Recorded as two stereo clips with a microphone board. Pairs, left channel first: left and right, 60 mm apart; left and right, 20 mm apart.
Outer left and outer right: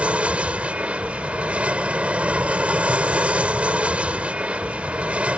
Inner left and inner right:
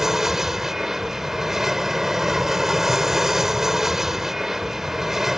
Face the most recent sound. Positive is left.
turn(degrees=-20)  # may be behind; listen again after turning